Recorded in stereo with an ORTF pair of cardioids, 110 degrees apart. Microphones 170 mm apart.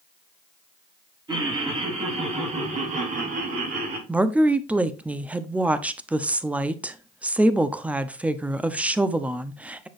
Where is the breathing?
I don't hear breathing.